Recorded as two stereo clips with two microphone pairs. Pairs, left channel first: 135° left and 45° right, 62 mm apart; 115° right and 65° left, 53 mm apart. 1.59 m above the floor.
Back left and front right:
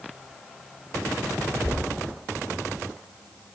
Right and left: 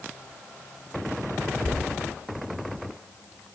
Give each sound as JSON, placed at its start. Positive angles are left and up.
{"t": 1.6, "sound": "knocking", "azimuth_deg": -105, "distance_m": 1.1}